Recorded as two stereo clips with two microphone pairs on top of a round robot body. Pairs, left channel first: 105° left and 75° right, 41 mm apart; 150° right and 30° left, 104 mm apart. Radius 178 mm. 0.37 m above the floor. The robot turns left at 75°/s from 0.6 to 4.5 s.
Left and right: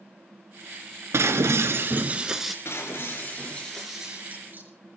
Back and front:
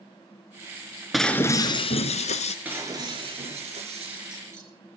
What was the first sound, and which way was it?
Breaking glass, 60° right.